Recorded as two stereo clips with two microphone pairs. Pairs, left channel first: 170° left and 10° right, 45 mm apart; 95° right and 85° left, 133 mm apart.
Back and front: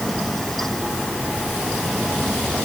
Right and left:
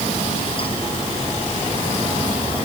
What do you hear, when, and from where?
Only background noise.